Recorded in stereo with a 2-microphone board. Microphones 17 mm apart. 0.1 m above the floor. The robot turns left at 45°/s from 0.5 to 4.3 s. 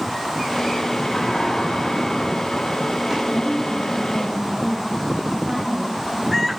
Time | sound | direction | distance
1.1 | a sliding door | 75° left | 8.5 m
3.3 | a woman speaking | 40° left | 4 m